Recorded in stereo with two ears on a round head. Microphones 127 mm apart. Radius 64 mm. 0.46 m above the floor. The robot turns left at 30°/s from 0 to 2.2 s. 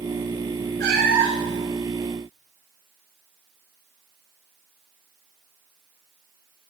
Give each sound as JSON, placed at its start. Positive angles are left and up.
{"t": 0.8, "sound": "a cat meowing", "side_deg": -80, "distance_m": 3.0}